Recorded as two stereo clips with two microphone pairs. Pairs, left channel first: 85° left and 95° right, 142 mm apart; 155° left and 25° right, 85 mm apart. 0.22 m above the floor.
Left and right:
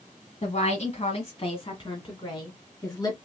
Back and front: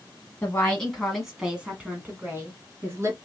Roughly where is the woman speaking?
Left.